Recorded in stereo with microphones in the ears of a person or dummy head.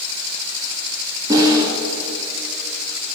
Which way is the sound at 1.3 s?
20° right (ahead or behind).